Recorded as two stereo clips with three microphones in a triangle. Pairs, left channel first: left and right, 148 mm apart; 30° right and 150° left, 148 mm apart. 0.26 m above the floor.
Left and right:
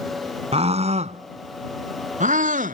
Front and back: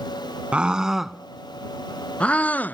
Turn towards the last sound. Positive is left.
turn(degrees=-110)